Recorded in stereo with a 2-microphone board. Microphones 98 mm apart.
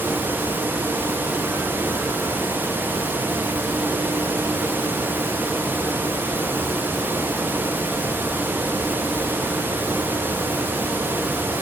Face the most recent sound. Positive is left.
No sound to turn to.